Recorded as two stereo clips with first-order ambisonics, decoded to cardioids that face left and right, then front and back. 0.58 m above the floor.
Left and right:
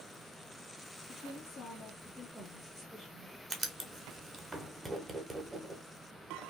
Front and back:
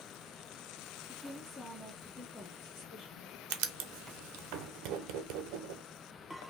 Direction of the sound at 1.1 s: 90° left.